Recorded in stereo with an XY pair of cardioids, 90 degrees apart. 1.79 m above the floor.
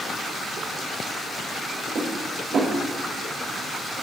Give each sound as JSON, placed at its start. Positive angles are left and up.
{"t": 1.9, "sound": "dishes clattering", "azimuth_deg": -70, "distance_m": 5.0}